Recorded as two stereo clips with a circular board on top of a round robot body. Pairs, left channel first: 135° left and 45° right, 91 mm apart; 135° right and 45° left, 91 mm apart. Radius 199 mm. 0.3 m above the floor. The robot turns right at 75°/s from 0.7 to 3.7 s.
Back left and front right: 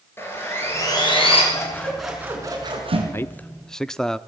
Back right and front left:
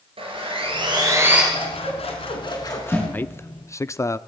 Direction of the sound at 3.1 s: 170° left.